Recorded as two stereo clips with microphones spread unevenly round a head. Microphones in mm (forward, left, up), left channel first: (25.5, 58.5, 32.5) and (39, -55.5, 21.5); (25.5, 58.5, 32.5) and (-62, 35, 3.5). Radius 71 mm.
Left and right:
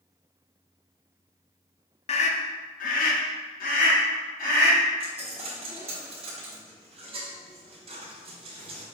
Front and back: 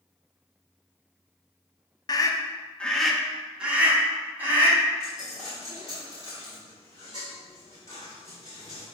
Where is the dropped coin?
45° right, 1.1 m.